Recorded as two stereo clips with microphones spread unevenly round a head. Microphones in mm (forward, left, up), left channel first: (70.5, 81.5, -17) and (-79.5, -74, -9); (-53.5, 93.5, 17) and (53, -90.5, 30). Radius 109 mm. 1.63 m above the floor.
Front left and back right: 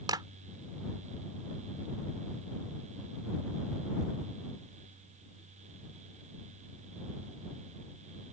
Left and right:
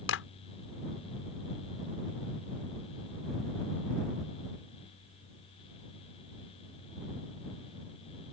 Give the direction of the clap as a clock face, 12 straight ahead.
7 o'clock.